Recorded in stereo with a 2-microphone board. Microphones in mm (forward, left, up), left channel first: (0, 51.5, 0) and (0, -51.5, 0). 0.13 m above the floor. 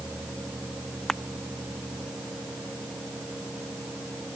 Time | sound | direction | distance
1.1 | crushing | 5° left (ahead or behind) | ?